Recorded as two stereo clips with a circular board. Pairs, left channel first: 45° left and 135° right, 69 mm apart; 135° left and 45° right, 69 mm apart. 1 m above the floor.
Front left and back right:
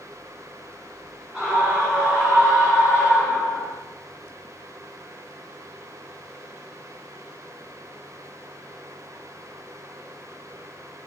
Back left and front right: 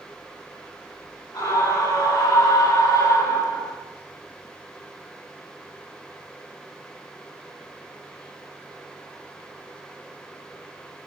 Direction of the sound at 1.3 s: 145° left.